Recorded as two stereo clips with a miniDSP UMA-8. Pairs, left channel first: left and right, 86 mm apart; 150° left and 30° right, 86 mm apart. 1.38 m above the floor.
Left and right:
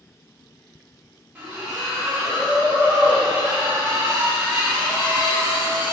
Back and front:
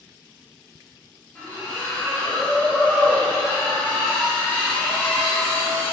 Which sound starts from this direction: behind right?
A splash, at 1.4 s.